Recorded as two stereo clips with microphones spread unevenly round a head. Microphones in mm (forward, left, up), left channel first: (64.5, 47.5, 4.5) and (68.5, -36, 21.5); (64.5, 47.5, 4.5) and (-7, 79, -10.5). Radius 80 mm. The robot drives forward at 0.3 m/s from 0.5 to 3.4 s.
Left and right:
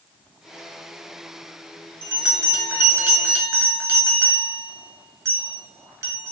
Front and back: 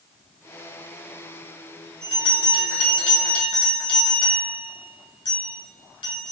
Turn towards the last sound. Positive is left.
turn(degrees=-40)